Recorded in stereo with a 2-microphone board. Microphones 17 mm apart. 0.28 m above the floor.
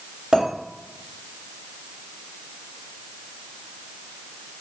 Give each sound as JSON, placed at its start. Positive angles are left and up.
{"t": 0.3, "sound": "a clink", "side_deg": -75, "distance_m": 1.9}